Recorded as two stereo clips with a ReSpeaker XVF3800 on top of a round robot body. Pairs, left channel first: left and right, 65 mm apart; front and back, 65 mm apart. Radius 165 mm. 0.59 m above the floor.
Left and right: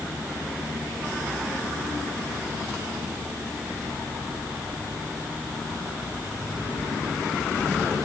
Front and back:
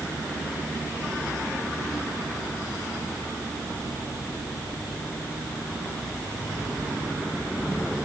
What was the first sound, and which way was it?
Only background noise.